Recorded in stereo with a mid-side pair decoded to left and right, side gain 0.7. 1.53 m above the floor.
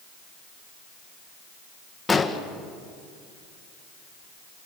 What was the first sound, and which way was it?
An explosion, 15° left.